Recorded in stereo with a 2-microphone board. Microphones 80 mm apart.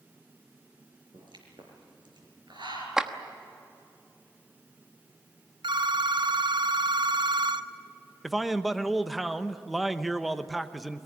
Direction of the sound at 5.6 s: 70° right (ahead or behind).